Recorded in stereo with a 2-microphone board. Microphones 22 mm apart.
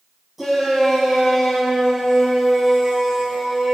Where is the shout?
15° right (ahead or behind), 7 m; by 3.8 s 25° right (ahead or behind), 5.5 m.